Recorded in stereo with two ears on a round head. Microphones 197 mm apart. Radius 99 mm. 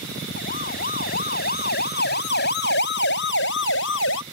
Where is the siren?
40° left (ahead or behind); by 4.2 s 65° left (ahead or behind).